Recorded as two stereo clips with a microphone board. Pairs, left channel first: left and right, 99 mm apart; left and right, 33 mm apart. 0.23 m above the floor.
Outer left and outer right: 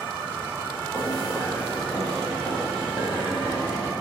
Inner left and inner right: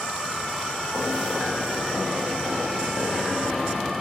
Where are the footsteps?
30° left (ahead or behind), 1.4 m; by 3.9 s 25° right (ahead or behind), 1.9 m.